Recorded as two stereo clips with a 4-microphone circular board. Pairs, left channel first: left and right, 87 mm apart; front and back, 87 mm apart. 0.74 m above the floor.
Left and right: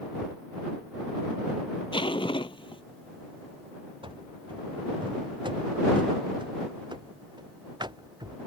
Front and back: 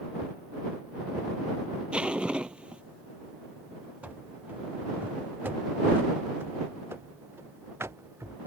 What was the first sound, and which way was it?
Ticking, 155° left.